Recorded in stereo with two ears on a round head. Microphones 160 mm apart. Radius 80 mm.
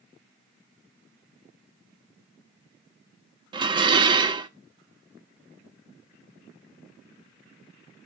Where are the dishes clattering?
25° right (ahead or behind), 0.5 m.